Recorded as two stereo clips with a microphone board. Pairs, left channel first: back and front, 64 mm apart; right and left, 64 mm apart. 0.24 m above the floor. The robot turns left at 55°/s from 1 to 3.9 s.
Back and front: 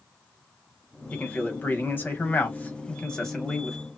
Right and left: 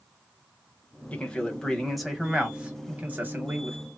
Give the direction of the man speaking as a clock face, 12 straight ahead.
4 o'clock.